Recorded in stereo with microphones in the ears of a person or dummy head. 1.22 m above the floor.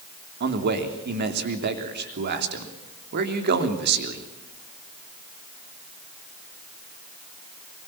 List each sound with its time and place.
0.4 s a man speaking: 55° right (ahead or behind), 3 m